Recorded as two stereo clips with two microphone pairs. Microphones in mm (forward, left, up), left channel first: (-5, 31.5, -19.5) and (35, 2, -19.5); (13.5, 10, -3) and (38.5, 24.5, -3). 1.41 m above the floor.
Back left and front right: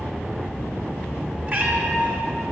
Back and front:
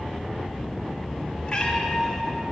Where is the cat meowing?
90° right, 1.7 m.